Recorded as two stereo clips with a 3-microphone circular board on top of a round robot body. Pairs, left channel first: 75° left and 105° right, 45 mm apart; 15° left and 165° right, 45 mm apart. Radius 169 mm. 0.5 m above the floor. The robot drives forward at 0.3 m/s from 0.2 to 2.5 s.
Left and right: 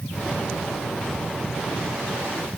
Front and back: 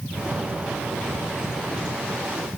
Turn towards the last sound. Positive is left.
No sound to turn to.